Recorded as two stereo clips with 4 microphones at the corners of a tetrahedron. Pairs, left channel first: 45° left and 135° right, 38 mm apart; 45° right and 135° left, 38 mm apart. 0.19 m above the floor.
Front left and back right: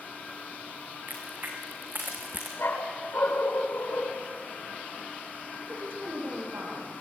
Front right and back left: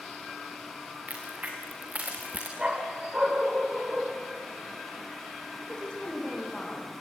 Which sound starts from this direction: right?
A woman speaking, at 5.6 s.